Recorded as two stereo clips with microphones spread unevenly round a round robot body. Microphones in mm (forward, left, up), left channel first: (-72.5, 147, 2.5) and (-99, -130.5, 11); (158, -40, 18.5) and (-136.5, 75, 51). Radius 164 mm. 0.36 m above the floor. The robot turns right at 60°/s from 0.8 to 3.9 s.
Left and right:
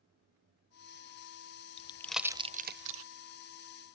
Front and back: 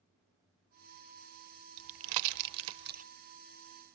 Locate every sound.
1.8 s a pop: 150° left, 0.5 m; by 3.0 s 130° right, 0.5 m